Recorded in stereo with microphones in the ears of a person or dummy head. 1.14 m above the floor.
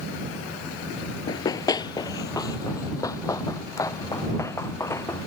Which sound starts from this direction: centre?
Running footsteps, at 1.3 s.